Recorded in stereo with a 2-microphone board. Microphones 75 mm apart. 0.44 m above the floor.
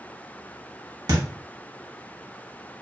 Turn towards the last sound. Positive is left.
turn(degrees=-50)  # may be behind; listen again after turning